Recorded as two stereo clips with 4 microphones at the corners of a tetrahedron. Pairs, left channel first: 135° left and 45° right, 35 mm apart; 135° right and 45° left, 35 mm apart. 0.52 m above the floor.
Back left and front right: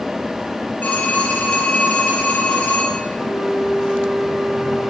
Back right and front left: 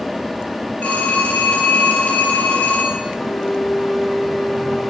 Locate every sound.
0.8 s a phone ringing: 175° right, 7.5 m
3.1 s a flute: 175° right, 9 m